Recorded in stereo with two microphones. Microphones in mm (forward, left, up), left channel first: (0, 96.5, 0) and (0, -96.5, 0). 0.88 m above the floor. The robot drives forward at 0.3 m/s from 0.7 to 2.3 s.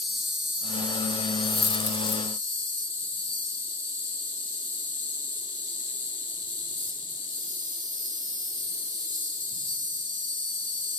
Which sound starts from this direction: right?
An insect, at 0.0 s.